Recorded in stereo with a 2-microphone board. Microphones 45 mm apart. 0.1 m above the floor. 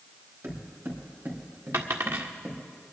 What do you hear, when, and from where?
0.4 s footsteps: 60° right (ahead or behind), 5 m; by 2.6 s 45° right (ahead or behind), 3.5 m
1.7 s a dropped coin: 65° right (ahead or behind), 1.6 m